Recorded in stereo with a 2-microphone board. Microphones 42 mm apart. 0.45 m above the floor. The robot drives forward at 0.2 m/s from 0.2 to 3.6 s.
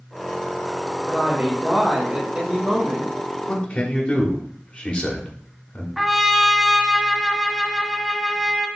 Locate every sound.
1.1 s a woman speaking: 30° right (ahead or behind), 1.5 m; by 3.1 s 25° right (ahead or behind), 1.7 m
3.5 s a man speaking: 30° left (ahead or behind), 1.2 m
6.0 s a trumpet: 5° right (ahead or behind), 0.6 m